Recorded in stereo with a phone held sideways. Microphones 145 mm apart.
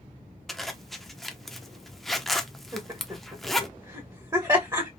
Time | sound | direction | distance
0.5 | a zipper | centre (ahead or behind) | 0.5 m
2.7 | laughter | 25° right (ahead or behind) | 1.2 m